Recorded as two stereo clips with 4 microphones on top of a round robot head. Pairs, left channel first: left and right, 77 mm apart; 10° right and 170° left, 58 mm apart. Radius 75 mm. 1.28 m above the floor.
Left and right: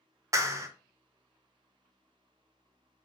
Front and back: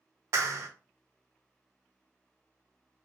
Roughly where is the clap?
Behind right.